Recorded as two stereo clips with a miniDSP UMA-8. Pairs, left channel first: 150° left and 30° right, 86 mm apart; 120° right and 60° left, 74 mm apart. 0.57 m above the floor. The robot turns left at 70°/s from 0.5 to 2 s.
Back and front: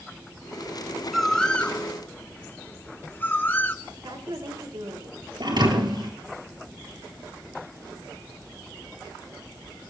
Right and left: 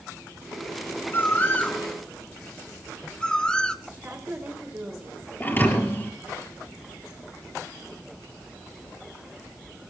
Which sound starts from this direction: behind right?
A bird, at 1.1 s.